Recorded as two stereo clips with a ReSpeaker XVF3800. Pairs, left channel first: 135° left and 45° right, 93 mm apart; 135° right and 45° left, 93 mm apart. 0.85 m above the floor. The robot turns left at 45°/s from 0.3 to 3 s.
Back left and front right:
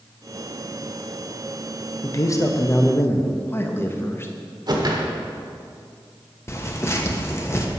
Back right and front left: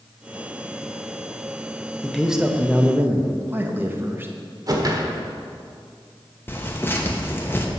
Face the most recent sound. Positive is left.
turn(degrees=175)